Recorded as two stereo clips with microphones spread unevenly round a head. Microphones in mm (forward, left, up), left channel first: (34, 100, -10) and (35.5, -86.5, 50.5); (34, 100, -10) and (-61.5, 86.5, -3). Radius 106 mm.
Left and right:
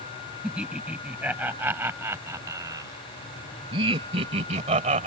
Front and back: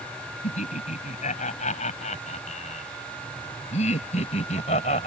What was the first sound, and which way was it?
Laughter, 5° right.